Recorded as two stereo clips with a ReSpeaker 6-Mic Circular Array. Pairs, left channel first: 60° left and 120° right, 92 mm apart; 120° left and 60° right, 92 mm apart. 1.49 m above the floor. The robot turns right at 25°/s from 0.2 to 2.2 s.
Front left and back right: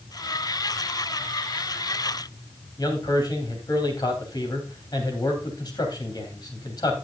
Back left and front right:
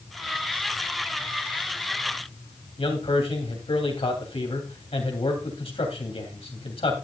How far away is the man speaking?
About 3 m.